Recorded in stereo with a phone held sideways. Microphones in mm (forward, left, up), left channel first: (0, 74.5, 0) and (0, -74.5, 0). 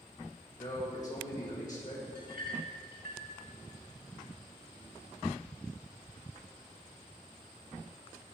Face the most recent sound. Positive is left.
turn(degrees=-70)  # may be behind; listen again after turning